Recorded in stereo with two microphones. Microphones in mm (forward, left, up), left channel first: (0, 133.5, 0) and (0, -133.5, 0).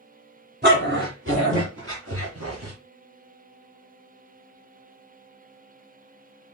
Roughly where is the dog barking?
Right.